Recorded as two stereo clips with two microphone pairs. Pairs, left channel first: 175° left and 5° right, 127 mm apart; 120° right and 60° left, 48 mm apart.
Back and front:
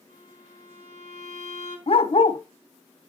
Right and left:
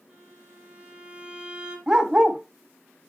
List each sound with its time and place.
0.1 s a violin: 5° right, 2.5 m
1.9 s a dog barking: 135° left, 0.5 m